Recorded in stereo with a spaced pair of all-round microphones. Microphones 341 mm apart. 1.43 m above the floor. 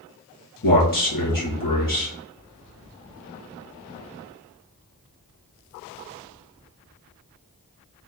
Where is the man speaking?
75° left (ahead or behind), 1.8 m.